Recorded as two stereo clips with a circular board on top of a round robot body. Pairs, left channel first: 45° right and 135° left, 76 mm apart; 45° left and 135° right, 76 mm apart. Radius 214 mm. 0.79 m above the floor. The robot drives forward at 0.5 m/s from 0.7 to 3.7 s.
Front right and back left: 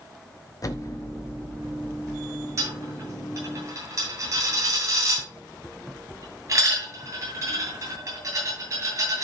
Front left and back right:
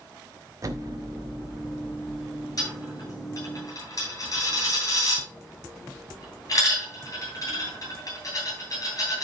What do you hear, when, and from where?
0.6 s an explosion: 90° right, 1.3 m; by 2.8 s 125° right, 1.6 m
2.6 s a dropped coin: 90° left, 8.5 m; by 9.2 s 95° left, 9 m